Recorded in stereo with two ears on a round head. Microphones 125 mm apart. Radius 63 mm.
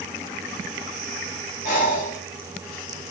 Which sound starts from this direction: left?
Breathing, at 1.6 s.